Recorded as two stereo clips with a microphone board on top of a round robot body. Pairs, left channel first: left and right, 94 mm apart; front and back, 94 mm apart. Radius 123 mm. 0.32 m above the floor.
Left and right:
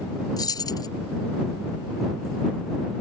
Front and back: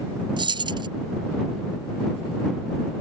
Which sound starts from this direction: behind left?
Keys jangling, at 0.4 s.